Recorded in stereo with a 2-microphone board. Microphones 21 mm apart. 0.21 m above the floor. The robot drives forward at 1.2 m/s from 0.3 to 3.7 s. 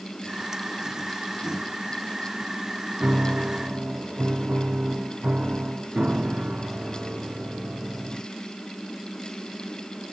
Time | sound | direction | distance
3.0 | a piano | 80° right | ?